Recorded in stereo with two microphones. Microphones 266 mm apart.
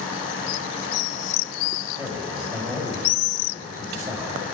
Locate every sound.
2.0 s a man speaking: 10° right (ahead or behind), 5.5 m